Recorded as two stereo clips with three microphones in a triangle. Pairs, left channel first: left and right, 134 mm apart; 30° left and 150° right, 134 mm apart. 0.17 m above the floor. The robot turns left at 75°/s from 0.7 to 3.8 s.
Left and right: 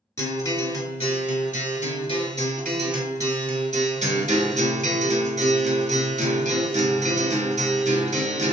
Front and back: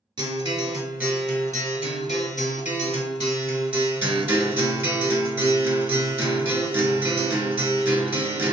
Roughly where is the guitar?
Behind left.